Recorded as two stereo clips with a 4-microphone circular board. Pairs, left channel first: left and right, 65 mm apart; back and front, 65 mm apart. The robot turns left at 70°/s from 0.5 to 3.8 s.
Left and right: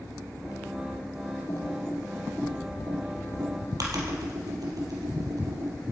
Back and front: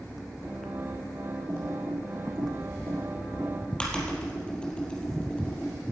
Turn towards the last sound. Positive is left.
turn(degrees=-105)